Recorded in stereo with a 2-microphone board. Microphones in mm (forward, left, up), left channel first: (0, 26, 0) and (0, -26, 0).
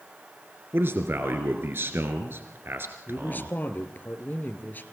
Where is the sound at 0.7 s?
45° right (ahead or behind), 2 m.